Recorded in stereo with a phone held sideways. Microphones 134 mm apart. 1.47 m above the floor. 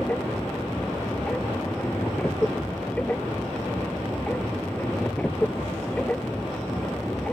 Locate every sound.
0.0 s a machine running: 10° left (ahead or behind)